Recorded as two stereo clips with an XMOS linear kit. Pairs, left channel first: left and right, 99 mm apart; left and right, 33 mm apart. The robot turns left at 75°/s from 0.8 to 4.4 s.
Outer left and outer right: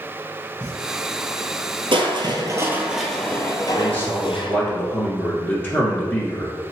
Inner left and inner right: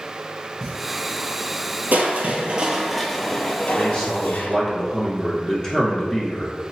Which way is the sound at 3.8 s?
20° left (ahead or behind).